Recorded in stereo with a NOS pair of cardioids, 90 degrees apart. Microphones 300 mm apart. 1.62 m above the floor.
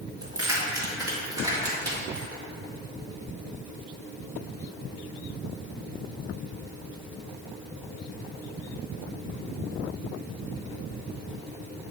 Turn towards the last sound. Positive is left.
turn(degrees=-10)